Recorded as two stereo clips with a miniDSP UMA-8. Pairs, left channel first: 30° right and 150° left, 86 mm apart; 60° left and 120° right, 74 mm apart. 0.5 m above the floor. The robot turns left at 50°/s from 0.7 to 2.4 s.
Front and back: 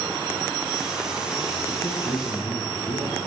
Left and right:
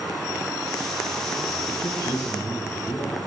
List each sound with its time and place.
1.7 s a man speaking: 35° left, 5.5 m; by 3.2 s straight ahead, 5.5 m